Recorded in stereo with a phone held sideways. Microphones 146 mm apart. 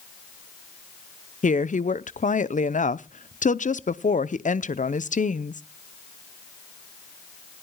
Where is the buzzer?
No buzzer in this recording.